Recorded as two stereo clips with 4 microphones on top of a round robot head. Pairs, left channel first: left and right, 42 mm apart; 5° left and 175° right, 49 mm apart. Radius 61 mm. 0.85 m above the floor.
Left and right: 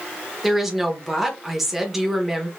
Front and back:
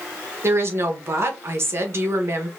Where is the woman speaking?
175° right, 1.1 m.